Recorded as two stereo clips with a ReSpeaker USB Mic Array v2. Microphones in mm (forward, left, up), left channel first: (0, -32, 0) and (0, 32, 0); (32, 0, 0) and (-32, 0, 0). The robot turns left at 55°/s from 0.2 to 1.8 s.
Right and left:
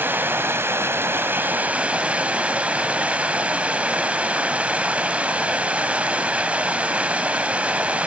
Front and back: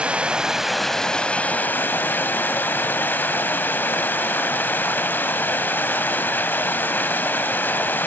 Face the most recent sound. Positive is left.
turn(degrees=35)